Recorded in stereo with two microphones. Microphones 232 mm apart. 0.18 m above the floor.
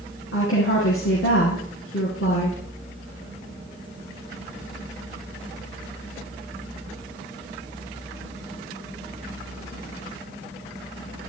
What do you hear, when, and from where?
0.3 s a woman speaking: 65° left (ahead or behind), 3.5 m